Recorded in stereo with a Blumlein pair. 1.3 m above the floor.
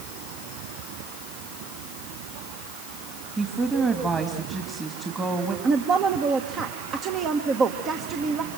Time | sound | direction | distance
3.4 | a woman speaking | 15° right | 2 m
5.6 | a woman speaking | 30° right | 1.4 m